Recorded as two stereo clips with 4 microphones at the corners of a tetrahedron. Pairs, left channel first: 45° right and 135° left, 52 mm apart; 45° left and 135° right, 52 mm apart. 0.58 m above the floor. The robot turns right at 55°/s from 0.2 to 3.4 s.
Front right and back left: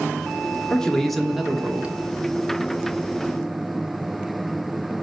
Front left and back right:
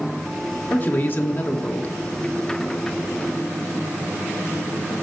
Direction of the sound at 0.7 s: 20° left.